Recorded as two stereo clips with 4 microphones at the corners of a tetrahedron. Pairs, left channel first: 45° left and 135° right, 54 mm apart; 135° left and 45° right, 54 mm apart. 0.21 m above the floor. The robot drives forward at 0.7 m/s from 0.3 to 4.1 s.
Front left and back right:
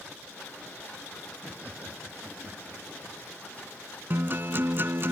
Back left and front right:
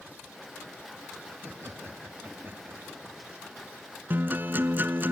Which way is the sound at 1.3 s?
75° right.